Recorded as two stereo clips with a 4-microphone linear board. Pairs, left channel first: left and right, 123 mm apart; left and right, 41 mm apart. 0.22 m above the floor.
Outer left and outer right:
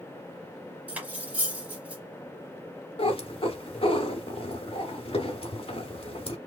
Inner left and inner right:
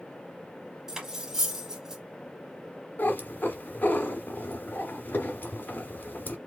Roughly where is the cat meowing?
Left.